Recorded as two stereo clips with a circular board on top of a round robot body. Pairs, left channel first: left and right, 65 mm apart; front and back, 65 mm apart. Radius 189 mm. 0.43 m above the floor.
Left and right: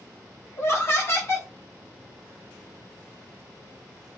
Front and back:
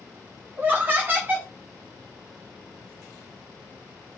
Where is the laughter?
125° left, 1.3 m.